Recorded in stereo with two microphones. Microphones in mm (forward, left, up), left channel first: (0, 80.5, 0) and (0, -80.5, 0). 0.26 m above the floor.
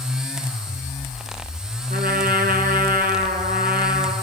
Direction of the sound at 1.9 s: 65° right (ahead or behind).